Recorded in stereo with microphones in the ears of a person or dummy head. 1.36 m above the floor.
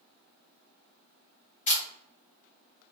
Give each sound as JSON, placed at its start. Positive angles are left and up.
{"t": 1.7, "sound": "a camera shutter", "side_deg": 35, "distance_m": 0.7}